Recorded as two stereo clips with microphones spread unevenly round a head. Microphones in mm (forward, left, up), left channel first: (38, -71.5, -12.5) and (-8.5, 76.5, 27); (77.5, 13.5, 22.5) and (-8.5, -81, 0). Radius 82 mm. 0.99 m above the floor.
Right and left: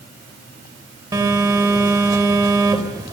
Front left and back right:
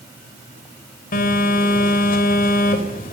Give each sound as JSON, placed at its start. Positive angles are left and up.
{"t": 1.1, "sound": "a phone buzzing", "azimuth_deg": 40, "distance_m": 3.5}